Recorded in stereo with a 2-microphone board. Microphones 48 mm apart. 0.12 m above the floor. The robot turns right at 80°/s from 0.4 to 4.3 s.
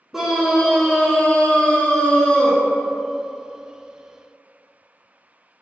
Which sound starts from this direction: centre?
A scream, at 0.1 s.